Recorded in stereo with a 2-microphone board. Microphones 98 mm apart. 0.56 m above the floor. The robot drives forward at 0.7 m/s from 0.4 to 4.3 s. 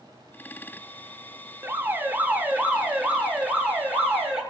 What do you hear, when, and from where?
1.6 s an alarm: 25° right (ahead or behind), 1.0 m; by 4.4 s 10° right (ahead or behind), 2.5 m